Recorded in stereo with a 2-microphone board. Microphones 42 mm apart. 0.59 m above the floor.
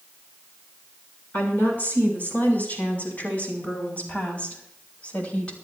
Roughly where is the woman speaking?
Left.